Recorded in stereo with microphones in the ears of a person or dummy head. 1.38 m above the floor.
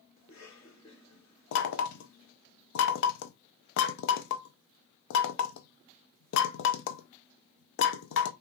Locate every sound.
0.2 s a cough: 25° left (ahead or behind), 3 m
1.5 s knocking: 60° left (ahead or behind), 0.6 m